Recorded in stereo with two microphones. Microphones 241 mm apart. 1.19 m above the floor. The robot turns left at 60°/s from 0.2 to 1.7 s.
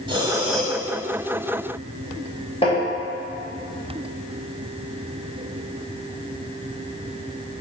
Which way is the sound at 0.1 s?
160° right.